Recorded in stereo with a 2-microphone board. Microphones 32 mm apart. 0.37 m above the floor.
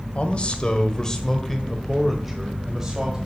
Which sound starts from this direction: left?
A man speaking, at 0.1 s.